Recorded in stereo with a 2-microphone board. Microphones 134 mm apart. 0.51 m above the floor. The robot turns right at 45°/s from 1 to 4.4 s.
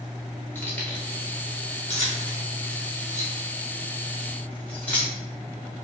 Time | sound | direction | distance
0.6 | keys jangling | 15° left (ahead or behind) | 0.8 m